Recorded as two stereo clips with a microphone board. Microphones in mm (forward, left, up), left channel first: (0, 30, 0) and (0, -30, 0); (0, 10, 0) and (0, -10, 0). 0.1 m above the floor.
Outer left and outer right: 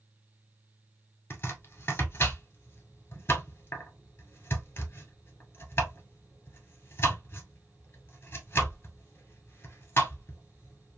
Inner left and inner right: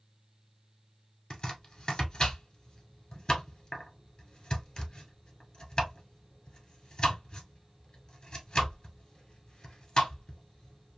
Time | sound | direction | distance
1.3 | chopping | 35° left (ahead or behind) | 1.4 m